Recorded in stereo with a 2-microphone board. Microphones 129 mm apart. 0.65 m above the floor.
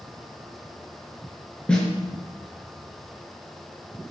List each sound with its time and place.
1.7 s a snare drum: 10° left (ahead or behind), 5.5 m